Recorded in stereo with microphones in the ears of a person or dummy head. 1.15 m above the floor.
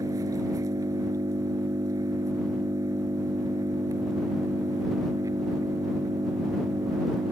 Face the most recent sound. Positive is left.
turn(degrees=-15)  # may be behind; listen again after turning